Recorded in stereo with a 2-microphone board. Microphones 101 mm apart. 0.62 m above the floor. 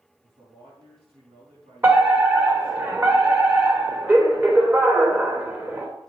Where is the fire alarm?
25° right (ahead or behind), 3 m.